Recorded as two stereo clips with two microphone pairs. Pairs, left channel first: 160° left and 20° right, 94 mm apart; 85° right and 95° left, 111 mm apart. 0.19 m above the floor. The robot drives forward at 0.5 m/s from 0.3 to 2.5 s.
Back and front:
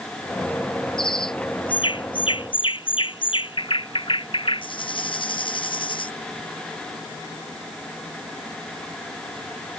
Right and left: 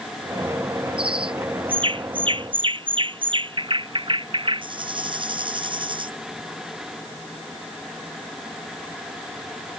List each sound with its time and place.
1.0 s a bird: 130° left; by 6.1 s 135° left